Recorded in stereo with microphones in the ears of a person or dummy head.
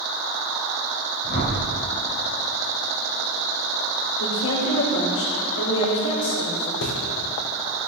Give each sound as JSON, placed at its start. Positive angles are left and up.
{"t": 1.2, "sound": "a whoosh", "side_deg": 45, "distance_m": 5.0}
{"t": 4.2, "sound": "a woman speaking", "side_deg": 80, "distance_m": 5.5}
{"t": 6.8, "sound": "a bird", "side_deg": 70, "distance_m": 1.9}